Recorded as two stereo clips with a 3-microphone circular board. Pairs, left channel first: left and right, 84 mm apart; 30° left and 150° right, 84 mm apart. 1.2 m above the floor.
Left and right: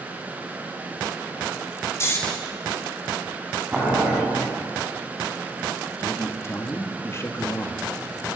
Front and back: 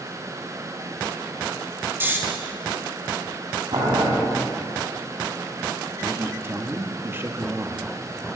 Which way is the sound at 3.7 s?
170° right.